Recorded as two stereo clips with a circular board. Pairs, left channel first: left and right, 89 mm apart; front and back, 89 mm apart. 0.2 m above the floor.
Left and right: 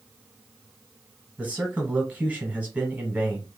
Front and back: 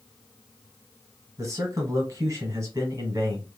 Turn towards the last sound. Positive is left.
turn(degrees=-155)